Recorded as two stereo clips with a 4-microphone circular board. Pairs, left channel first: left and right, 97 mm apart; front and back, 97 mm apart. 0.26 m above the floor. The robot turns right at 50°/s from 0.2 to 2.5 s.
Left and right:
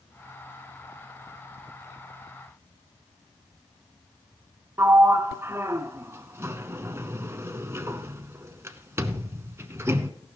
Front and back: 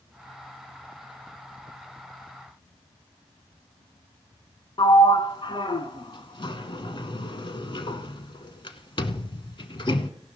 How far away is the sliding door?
About 0.8 m.